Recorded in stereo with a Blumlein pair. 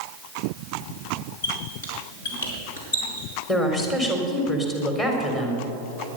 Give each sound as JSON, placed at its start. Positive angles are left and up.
{"t": 1.4, "sound": "a squeak", "azimuth_deg": 60, "distance_m": 5.0}
{"t": 3.5, "sound": "a woman speaking", "azimuth_deg": 25, "distance_m": 4.0}